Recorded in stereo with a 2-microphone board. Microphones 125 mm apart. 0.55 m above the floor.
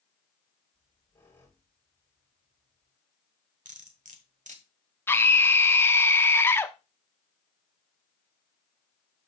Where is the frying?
No frying in this recording.